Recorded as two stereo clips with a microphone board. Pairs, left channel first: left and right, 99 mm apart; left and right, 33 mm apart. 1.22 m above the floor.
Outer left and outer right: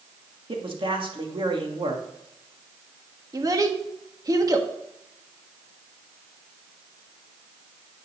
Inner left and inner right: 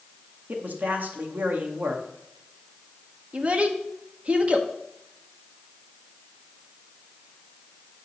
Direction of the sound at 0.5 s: 55° right (ahead or behind).